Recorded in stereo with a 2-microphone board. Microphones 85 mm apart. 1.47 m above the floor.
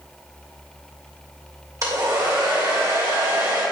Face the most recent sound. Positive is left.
turn(degrees=-40)  # may be behind; listen again after turning